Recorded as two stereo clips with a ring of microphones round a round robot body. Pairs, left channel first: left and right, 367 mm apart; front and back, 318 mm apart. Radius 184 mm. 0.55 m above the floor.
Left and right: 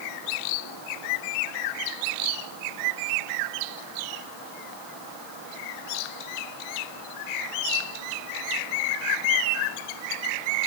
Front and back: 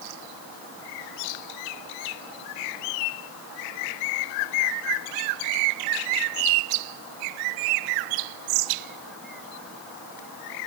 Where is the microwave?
No microwave in this recording.